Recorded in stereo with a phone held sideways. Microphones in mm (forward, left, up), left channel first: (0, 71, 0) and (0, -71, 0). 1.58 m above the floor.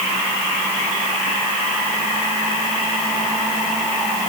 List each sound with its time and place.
Only background noise.